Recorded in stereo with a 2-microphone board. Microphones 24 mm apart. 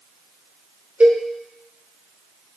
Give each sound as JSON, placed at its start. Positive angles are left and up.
{"t": 1.0, "sound": "a cowbell", "side_deg": -80, "distance_m": 1.0}